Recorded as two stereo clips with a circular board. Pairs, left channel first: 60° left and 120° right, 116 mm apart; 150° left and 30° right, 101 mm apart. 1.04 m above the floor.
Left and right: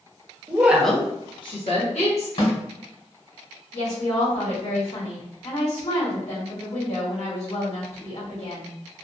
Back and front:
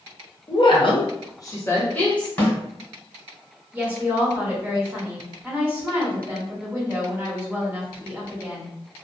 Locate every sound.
0.5 s a woman speaking: 175° left, 0.7 m; by 2.3 s 70° left, 1.2 m
2.4 s a snare drum: 75° left, 1.7 m
3.7 s a woman speaking: 40° left, 1.6 m